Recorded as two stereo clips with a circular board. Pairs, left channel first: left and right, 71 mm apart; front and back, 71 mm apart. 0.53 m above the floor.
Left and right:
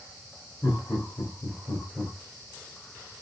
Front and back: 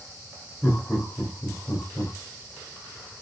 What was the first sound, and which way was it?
Laughter, 70° left.